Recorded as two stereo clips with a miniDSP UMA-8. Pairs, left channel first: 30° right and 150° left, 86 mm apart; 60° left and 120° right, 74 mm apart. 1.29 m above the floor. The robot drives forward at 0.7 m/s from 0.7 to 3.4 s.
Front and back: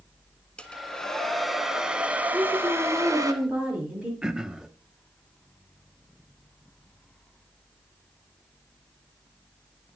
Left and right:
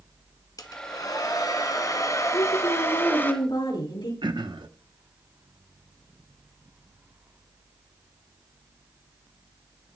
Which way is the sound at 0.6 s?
45° left.